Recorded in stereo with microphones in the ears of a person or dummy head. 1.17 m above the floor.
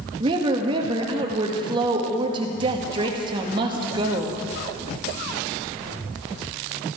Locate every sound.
0.2 s a woman speaking: 30° right (ahead or behind), 1.7 m